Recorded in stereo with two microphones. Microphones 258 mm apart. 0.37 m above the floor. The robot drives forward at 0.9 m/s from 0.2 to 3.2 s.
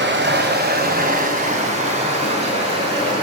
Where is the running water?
45° right (ahead or behind), 1.8 m; by 3.2 s 20° right (ahead or behind), 4 m.